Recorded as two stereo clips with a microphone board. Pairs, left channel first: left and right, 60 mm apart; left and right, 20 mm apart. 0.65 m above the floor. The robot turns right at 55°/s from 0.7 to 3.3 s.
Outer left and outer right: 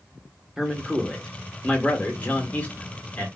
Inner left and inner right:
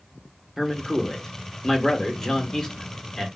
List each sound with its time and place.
0.6 s a man speaking: 10° right (ahead or behind), 0.9 m; by 3.3 s 20° left (ahead or behind), 0.9 m